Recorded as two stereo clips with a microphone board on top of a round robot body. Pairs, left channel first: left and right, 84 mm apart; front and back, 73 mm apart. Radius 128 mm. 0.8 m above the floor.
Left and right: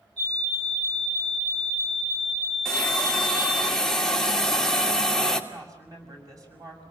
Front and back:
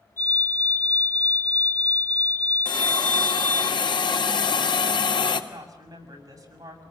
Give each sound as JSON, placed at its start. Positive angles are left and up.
{"t": 0.2, "sound": "a fire alarm", "azimuth_deg": -55, "distance_m": 9.5}
{"t": 2.6, "sound": "a hiss", "azimuth_deg": 5, "distance_m": 2.0}
{"t": 5.5, "sound": "a woman speaking", "azimuth_deg": -140, "distance_m": 6.5}